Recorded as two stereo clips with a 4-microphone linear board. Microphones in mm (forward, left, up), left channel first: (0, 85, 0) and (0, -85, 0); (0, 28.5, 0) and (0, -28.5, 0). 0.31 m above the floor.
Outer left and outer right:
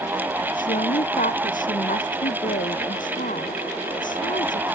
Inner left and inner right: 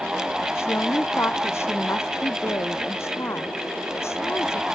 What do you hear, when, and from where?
0.6 s a woman speaking: 50° left (ahead or behind)